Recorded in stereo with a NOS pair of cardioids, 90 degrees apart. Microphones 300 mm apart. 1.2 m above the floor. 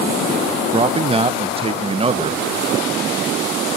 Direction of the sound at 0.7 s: 20° right.